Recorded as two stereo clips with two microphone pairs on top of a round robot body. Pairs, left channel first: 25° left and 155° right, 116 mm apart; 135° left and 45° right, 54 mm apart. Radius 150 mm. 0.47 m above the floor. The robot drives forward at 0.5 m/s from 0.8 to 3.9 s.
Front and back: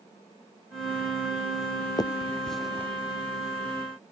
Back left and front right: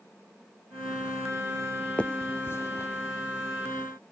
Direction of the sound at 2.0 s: 65° left.